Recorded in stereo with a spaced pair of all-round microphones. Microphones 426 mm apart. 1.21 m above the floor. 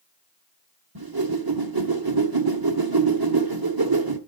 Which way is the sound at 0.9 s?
55° right (ahead or behind).